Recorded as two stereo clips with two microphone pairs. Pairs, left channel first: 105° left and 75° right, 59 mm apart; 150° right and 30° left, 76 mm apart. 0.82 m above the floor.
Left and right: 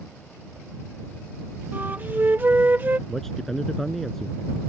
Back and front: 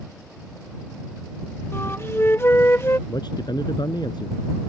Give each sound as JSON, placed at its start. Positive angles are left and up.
{"t": 1.7, "sound": "a flute", "azimuth_deg": -115}
{"t": 3.1, "sound": "a man speaking", "azimuth_deg": -170}